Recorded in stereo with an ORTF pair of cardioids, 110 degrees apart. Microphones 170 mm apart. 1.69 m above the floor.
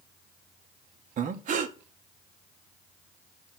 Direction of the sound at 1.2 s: 50° right.